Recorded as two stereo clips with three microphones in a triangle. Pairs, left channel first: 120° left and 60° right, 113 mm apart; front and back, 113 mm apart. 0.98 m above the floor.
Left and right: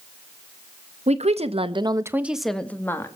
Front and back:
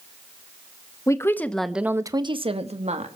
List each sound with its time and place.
1.1 s a woman speaking: 60° right, 1.7 m; by 3.2 s 175° right, 2 m